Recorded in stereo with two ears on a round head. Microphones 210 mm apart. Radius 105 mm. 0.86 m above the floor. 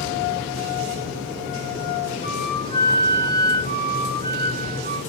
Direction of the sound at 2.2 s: 25° left (ahead or behind).